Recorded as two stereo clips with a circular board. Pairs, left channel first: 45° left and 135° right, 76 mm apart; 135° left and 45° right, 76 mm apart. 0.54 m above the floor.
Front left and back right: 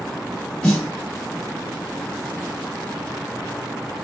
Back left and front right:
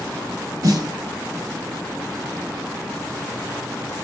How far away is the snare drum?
About 1.8 m.